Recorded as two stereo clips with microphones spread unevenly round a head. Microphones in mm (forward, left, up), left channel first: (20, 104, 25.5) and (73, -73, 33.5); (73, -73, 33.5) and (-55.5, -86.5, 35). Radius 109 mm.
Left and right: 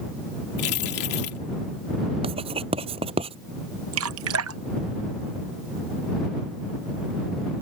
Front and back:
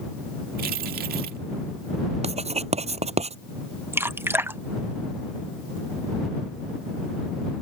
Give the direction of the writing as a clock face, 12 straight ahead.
5 o'clock.